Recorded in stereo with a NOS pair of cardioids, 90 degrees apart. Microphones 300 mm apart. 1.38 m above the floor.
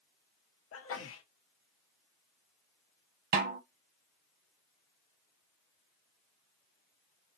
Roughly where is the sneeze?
Ahead left.